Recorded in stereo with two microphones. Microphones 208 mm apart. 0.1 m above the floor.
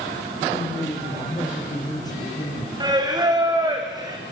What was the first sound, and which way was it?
A man speaking, 20° left (ahead or behind).